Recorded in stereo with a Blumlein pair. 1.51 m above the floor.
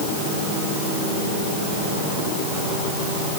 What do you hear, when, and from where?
Only background noise.